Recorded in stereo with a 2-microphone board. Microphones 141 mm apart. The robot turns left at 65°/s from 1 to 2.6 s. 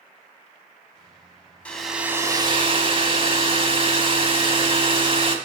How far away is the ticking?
I don't hear ticking.